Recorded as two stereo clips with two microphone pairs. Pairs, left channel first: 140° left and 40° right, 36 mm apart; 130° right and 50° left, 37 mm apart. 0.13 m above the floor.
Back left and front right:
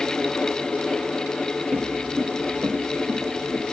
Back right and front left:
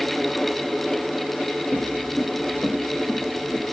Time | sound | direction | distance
1.7 | footsteps | 90° right | 1.0 m